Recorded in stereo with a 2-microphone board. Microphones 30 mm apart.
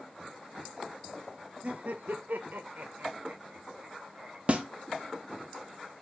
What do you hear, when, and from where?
1.6 s laughter: 50° right (ahead or behind), 0.6 m; by 4.4 s 40° right (ahead or behind), 1.4 m
4.5 s a snare drum: 45° right (ahead or behind), 0.6 m